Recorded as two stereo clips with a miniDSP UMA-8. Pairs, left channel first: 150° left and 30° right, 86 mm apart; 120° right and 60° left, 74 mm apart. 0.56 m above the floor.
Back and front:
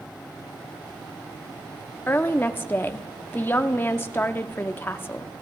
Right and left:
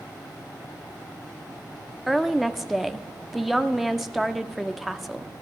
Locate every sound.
2.1 s a woman speaking: 145° left, 0.7 m